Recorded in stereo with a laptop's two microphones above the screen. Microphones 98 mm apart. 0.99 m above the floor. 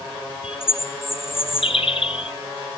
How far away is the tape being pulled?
I don't hear tape being pulled.